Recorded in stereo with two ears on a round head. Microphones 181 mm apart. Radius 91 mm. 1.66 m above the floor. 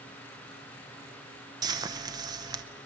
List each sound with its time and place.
1.6 s frying: 20° right (ahead or behind), 0.9 m